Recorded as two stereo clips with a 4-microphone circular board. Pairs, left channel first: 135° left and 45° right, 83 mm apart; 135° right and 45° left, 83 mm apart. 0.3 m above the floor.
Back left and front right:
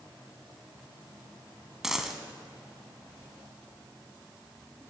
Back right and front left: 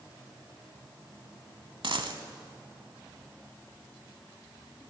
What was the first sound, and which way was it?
A dropped coin, 40° left.